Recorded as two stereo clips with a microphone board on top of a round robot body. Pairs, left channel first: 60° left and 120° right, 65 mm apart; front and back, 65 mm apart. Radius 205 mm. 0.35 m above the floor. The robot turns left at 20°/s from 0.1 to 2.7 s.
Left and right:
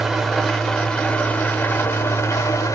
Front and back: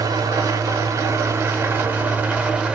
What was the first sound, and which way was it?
An engine running, 155° left.